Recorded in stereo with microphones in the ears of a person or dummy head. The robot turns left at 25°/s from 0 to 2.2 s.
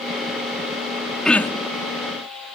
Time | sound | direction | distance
1.2 | throat clearing | centre (ahead or behind) | ?